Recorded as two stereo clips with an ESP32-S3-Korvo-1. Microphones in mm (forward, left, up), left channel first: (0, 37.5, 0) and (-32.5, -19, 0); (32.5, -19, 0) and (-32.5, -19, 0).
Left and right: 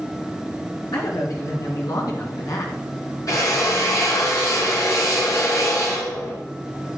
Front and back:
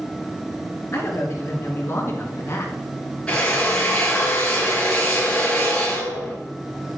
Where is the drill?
75° left, 4.5 m.